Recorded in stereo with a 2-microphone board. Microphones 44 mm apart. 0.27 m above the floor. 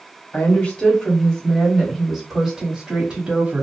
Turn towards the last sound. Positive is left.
turn(degrees=-30)  # may be behind; listen again after turning